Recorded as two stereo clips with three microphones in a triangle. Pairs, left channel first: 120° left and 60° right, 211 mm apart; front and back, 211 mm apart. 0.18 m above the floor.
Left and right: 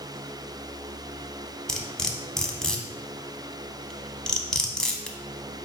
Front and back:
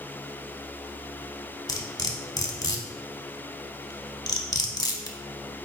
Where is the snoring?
No snoring in this recording.